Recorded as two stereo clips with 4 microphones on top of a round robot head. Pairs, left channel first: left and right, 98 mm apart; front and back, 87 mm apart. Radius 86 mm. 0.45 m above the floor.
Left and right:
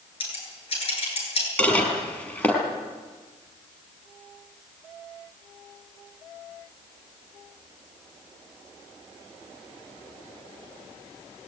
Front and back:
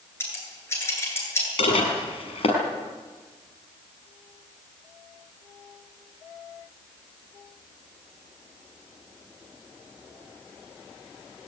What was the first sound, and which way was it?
Scissors, 65° left.